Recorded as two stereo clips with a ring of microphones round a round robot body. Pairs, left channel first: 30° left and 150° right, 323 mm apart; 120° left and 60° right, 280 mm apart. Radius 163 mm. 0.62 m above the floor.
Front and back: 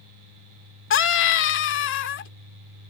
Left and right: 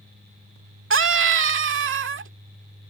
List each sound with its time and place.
0.9 s a scream: 20° right